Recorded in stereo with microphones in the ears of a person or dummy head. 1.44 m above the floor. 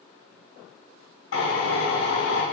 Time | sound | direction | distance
1.3 | a drill | 80° left | 3 m